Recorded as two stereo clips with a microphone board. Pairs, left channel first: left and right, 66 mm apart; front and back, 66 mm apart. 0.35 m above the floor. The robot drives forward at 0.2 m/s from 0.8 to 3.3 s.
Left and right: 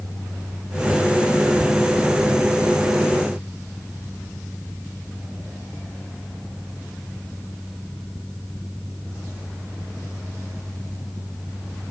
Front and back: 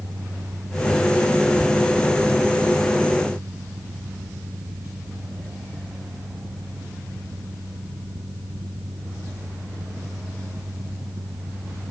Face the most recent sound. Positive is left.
No sound to turn to.